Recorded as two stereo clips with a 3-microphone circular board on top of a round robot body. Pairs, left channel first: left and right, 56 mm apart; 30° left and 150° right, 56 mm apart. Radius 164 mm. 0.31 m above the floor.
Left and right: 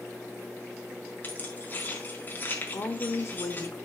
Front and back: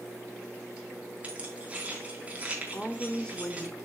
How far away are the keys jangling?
About 4 m.